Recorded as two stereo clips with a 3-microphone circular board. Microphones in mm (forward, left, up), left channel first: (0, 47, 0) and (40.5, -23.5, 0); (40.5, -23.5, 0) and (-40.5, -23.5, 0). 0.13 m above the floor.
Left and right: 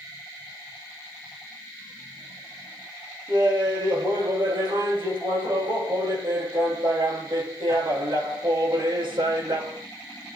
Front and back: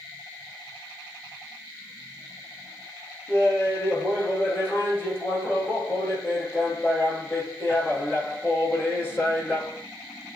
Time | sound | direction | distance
3.3 | laughter | 70° right | 7.5 m